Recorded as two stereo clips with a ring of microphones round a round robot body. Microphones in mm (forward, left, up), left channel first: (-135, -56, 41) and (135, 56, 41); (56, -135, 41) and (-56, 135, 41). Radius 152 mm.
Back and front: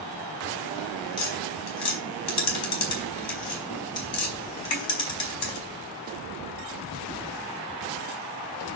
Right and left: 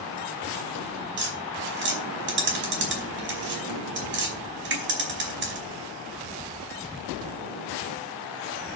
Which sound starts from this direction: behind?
Tapping, at 1.2 s.